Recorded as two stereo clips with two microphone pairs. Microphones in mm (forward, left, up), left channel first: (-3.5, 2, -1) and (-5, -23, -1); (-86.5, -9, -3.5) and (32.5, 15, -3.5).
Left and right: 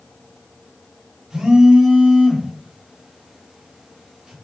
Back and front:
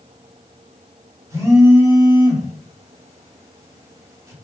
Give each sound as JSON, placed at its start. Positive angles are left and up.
{"t": 1.3, "sound": "a phone buzzing", "azimuth_deg": -45, "distance_m": 1.2}